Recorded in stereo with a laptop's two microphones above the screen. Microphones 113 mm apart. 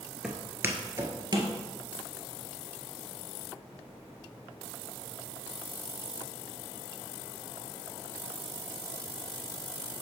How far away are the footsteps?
About 0.9 m.